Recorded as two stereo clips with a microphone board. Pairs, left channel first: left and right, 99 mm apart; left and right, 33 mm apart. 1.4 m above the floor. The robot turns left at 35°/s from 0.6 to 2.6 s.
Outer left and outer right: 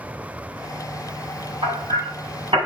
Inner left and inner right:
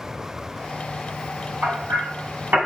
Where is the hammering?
75° right (ahead or behind), 4 m; by 2.6 s 70° right (ahead or behind), 4 m.